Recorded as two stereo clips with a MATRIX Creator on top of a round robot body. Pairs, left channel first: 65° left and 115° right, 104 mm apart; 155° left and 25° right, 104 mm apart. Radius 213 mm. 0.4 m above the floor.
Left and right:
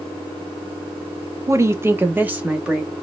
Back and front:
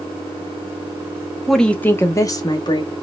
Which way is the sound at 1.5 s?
115° right.